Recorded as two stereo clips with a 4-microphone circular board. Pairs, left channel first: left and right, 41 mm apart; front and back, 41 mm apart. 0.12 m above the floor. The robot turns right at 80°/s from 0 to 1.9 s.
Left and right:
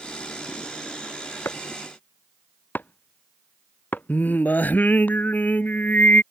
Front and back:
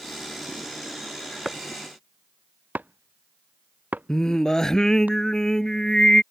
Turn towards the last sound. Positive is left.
turn(degrees=70)